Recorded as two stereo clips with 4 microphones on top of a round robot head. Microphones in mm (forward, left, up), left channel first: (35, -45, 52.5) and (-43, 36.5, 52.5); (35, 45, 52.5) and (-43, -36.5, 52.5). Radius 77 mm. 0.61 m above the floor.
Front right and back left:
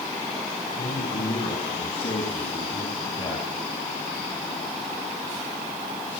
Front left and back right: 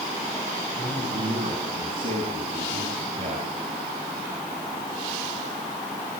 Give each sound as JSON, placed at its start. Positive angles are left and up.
{"t": 0.8, "sound": "a man speaking", "azimuth_deg": -75, "distance_m": 6.0}